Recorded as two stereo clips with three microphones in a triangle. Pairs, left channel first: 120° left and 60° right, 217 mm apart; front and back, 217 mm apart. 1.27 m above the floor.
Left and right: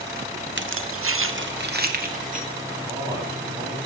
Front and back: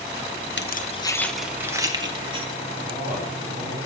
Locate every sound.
0.6 s keys jangling: 30° right, 0.6 m; by 2.5 s 115° right, 1.6 m
2.8 s a man speaking: 135° right, 7 m